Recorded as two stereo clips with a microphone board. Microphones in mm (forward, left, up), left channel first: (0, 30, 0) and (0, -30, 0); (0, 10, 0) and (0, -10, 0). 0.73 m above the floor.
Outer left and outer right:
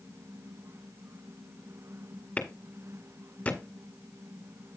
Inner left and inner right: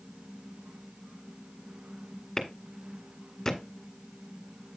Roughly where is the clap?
Left.